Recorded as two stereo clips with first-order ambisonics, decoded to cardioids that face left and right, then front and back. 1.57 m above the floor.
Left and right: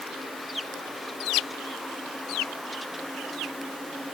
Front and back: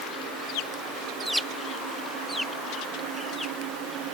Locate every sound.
Only background noise.